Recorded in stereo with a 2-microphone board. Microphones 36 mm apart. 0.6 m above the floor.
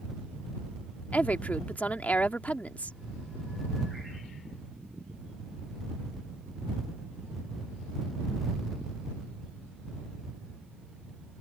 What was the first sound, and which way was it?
A woman speaking, 40° left (ahead or behind).